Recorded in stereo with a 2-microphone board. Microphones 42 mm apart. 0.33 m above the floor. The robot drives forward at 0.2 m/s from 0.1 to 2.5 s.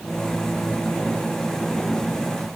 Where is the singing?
No singing in this recording.